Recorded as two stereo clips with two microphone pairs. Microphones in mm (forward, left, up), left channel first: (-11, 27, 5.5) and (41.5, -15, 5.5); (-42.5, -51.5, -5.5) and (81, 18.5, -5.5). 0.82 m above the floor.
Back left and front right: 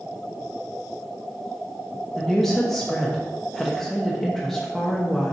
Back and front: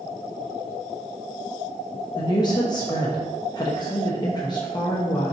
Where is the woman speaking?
130° right, 1.0 m.